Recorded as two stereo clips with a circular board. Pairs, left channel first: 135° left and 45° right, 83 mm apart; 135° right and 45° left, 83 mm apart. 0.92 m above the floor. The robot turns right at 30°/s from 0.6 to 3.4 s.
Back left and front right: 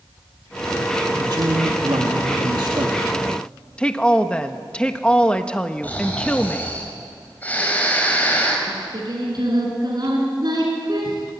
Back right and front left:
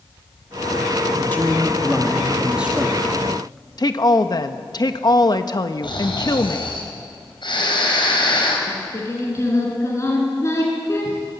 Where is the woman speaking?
150° right, 1.2 m.